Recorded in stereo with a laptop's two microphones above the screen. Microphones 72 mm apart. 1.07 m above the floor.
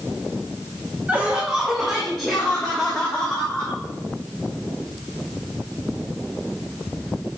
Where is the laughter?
20° right (ahead or behind), 0.9 m; by 3.8 s 20° left (ahead or behind), 1.9 m.